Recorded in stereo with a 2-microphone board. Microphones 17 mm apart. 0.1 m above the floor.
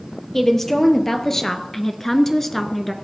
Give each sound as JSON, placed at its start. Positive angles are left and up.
{"t": 0.3, "sound": "a woman speaking", "side_deg": 25, "distance_m": 2.5}